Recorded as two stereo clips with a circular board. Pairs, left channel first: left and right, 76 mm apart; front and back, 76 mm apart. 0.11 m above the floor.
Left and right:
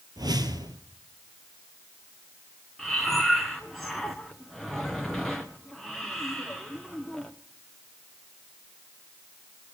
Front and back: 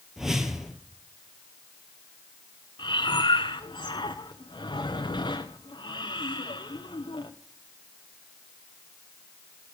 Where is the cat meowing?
I don't hear a cat meowing.